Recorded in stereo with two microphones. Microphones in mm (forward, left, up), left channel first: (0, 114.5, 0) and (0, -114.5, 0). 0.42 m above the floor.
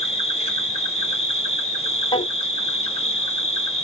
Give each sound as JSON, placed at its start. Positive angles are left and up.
{"t": 0.0, "sound": "an insect", "side_deg": 25, "distance_m": 0.8}
{"t": 2.1, "sound": "a drawer", "side_deg": 20, "distance_m": 0.7}